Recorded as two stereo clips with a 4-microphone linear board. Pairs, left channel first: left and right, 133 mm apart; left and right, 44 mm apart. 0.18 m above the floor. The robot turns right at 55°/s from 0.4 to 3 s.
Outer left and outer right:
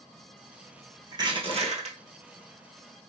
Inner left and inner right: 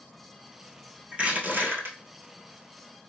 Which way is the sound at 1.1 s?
150° right.